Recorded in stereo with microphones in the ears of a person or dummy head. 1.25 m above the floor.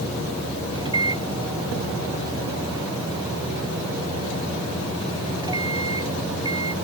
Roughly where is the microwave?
Right.